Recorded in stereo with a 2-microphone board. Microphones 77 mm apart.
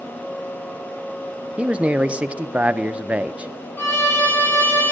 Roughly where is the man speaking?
Centre.